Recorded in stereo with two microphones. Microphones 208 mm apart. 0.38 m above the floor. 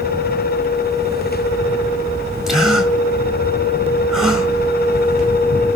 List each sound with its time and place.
2.5 s a gasp: centre (ahead or behind), 3.5 m